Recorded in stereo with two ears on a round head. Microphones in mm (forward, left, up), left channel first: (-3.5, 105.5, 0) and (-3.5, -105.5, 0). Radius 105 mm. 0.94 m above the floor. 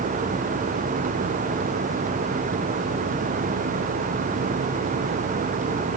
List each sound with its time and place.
Only background noise.